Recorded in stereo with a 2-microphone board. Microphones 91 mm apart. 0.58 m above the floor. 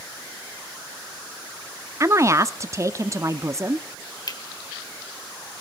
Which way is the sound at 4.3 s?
45° left (ahead or behind).